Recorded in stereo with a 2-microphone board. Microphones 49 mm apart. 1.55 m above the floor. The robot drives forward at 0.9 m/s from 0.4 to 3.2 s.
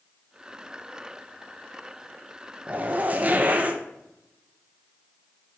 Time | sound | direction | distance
2.7 | a zipper | 30° right (ahead or behind) | 0.7 m